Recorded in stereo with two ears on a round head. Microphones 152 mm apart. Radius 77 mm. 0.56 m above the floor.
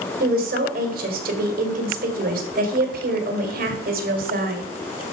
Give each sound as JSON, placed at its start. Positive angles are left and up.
{"t": 0.2, "sound": "a woman speaking", "side_deg": -60, "distance_m": 1.9}